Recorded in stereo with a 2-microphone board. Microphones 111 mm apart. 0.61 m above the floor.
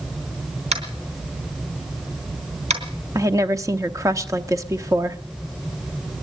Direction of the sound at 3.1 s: 30° right (ahead or behind).